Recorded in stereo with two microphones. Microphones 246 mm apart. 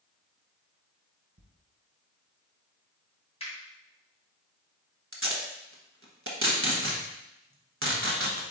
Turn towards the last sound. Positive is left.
turn(degrees=-55)  # may be behind; listen again after turning